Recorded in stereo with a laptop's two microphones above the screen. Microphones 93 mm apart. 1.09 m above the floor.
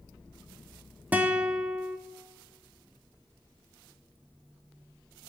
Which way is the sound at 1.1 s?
15° right (ahead or behind).